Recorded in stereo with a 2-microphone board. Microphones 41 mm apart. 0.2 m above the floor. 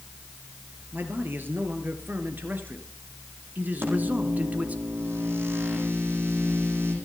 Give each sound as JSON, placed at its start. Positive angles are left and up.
{"t": 0.9, "sound": "a man speaking", "side_deg": -60, "distance_m": 3.5}
{"t": 3.8, "sound": "a microwave", "side_deg": -80, "distance_m": 9.0}